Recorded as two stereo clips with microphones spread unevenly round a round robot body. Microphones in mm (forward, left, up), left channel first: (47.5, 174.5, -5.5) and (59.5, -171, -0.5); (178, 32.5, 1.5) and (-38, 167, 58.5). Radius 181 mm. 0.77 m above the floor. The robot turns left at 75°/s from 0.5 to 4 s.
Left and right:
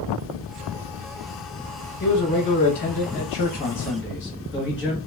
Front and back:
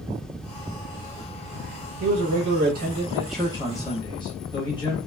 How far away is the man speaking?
About 0.9 m.